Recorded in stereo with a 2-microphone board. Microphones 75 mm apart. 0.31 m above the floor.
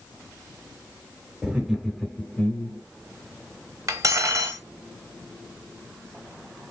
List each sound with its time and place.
1.4 s laughter: 15° right (ahead or behind), 0.9 m; by 2.8 s 25° left (ahead or behind), 1.0 m
3.9 s cutlery clinking: 45° right (ahead or behind), 0.8 m